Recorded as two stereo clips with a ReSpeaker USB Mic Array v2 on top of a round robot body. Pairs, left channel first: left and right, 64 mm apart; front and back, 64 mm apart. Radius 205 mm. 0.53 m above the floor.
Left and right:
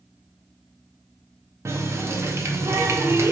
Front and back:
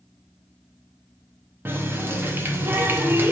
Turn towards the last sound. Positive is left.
turn(degrees=-130)